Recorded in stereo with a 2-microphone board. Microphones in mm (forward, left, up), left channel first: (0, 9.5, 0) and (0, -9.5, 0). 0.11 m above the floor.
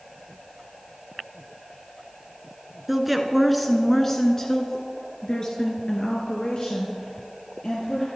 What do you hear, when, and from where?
2.9 s a woman speaking: 10° right (ahead or behind), 1.5 m; by 8.1 s 50° left (ahead or behind), 3 m